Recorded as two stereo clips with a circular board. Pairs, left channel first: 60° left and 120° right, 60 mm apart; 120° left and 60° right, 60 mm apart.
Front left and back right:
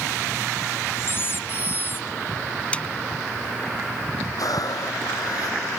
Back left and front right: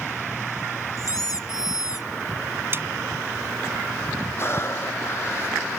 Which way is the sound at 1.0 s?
110° left.